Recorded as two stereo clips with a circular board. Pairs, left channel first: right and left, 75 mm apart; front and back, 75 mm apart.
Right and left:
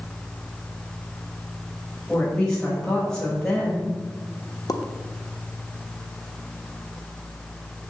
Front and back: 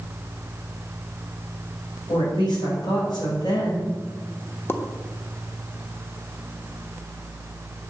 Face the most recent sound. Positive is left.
turn(degrees=-60)